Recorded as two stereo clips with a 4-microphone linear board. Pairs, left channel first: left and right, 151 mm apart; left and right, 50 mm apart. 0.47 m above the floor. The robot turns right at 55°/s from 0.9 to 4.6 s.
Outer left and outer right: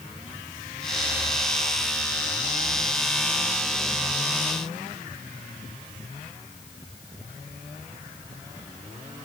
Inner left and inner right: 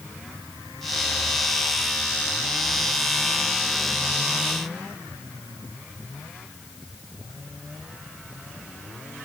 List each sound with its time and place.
Only background noise.